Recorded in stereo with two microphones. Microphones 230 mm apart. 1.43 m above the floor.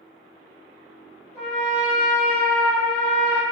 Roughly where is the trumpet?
Right.